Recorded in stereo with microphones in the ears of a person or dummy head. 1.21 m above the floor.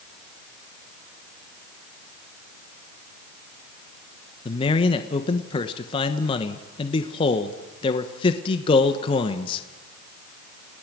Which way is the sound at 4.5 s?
25° left (ahead or behind).